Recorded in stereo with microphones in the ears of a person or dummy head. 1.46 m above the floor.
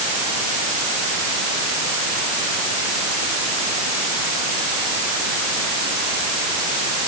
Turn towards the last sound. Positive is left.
No sound to turn to.